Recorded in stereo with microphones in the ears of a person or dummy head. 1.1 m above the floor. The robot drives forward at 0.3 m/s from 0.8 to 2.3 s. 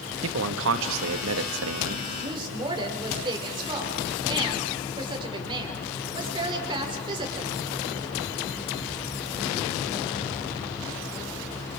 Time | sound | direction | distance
0.2 | a man speaking | 70° right (ahead or behind) | 1.5 m
2.2 | a woman speaking | 25° right (ahead or behind) | 4.5 m